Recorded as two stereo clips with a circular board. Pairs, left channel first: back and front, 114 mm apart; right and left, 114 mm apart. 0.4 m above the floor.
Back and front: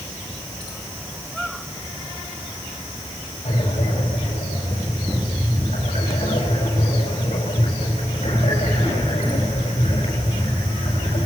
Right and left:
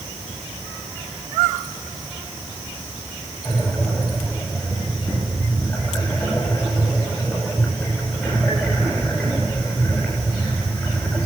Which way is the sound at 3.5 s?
175° right.